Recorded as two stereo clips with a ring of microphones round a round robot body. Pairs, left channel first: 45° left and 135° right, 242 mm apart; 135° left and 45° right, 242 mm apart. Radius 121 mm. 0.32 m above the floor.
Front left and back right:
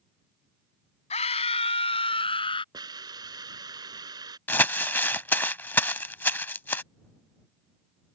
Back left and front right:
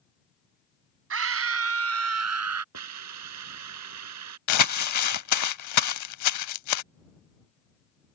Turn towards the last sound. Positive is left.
turn(degrees=125)